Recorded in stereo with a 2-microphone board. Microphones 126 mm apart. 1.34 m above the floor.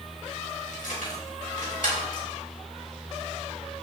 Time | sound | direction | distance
0.7 | keys jangling | 80° left | 4.5 m